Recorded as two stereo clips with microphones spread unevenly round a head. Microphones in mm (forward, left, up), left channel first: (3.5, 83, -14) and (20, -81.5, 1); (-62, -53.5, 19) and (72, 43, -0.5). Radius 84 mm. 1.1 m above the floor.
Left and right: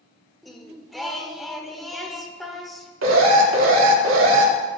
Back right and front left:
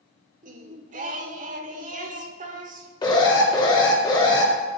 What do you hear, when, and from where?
0.4 s singing: straight ahead, 0.9 m
3.0 s an alarm: 80° right, 2.5 m